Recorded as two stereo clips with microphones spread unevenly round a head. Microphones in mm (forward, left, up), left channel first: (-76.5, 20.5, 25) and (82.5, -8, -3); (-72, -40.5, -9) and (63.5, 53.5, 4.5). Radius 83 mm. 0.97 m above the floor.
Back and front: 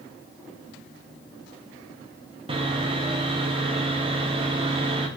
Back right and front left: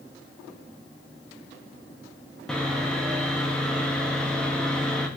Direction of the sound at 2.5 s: 60° right.